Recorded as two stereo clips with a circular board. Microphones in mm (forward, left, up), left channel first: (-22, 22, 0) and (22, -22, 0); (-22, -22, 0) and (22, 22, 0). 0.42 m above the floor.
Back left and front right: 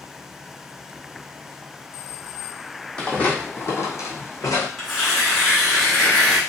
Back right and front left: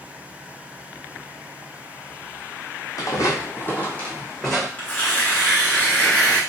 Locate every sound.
3.0 s footsteps: 155° right, 0.8 m; by 4.7 s 135° left, 1.1 m
4.8 s tearing paper: 130° right, 1.2 m